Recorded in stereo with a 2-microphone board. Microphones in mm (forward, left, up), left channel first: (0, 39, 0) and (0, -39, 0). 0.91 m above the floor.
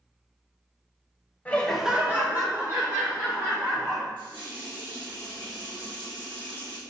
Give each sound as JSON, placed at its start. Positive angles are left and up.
{"t": 1.4, "sound": "laughter", "side_deg": 20, "distance_m": 0.7}
{"t": 4.2, "sound": "a running tap", "side_deg": -80, "distance_m": 1.3}